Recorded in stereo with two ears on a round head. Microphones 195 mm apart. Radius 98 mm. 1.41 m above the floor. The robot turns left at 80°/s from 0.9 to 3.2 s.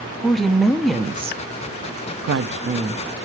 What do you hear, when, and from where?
0.2 s a woman speaking: straight ahead, 0.6 m; by 3.0 s 170° right, 0.6 m